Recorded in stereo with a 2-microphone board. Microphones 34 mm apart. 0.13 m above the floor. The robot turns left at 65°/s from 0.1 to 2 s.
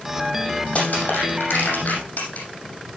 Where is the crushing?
40° left (ahead or behind), 7 m; by 2.5 s 55° left (ahead or behind), 7 m.